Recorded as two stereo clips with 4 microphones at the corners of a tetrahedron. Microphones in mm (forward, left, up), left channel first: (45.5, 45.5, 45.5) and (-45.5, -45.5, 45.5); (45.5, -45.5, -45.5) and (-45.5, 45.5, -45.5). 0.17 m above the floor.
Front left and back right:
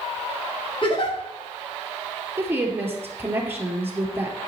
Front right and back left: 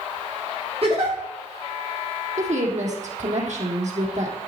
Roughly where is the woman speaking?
Behind left.